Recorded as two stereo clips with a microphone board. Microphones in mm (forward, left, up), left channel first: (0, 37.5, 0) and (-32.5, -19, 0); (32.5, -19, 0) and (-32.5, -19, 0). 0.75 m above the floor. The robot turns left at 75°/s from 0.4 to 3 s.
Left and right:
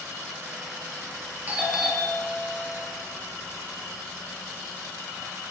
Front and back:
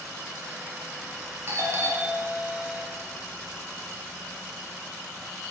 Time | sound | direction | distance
1.5 | a doorbell | 165° right | 2 m